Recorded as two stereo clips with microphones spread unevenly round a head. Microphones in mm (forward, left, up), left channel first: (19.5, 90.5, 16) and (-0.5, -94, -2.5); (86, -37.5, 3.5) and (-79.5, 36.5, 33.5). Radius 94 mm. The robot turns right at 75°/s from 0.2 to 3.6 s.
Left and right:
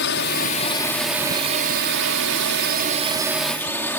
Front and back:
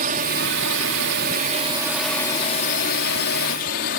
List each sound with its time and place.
0.0 s a drone: 110° left; by 4.0 s 5° left